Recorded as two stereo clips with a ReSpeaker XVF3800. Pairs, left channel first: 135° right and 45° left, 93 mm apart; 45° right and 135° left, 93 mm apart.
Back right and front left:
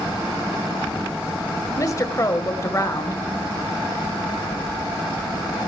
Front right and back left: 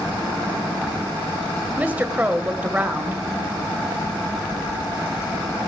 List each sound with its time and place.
1.8 s a woman speaking: 165° right, 1.8 m